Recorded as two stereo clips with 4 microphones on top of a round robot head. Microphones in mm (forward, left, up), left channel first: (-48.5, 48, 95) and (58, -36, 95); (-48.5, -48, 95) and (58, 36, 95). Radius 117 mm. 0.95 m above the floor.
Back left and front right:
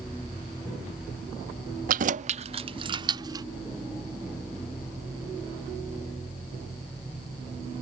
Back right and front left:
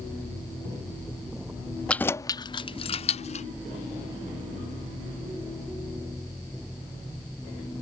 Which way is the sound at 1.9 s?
60° right.